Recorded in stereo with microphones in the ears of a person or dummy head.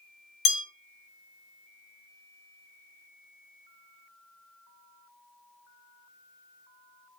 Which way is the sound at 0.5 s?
65° left (ahead or behind).